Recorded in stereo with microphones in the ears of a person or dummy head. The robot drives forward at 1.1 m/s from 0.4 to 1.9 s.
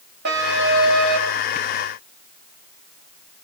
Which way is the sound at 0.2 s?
60° right (ahead or behind).